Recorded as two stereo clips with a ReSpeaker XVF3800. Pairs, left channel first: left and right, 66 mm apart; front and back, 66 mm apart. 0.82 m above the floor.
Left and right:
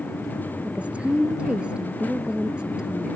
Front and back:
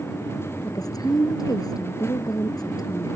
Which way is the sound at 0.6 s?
20° right.